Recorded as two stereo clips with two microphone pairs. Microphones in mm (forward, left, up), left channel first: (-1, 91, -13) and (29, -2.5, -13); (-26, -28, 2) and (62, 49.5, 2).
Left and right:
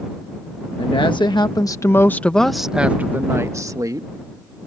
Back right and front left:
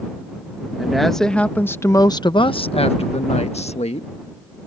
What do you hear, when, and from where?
0.8 s a woman speaking: 125° left; by 4.1 s 120° right